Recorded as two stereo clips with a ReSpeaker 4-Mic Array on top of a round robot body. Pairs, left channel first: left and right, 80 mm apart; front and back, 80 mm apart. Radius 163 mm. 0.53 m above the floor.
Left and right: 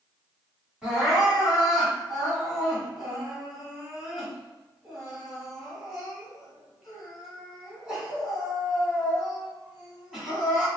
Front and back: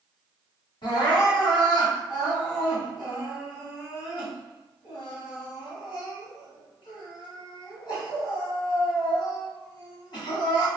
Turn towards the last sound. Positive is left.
turn(degrees=-5)